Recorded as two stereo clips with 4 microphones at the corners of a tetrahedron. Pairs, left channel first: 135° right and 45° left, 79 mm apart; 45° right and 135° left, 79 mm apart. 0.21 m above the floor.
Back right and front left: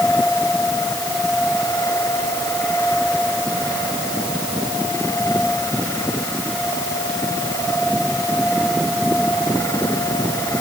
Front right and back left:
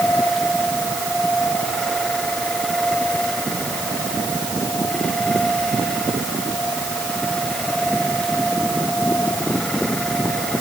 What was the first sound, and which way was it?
Only background noise.